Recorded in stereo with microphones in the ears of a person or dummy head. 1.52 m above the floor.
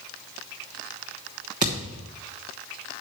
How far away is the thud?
About 1.0 m.